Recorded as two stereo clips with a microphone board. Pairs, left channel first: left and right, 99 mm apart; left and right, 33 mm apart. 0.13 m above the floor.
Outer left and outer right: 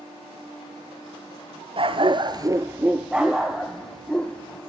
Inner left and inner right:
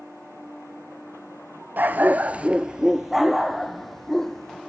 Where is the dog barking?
65° right (ahead or behind), 0.9 m; by 4.6 s 10° left (ahead or behind), 2.5 m.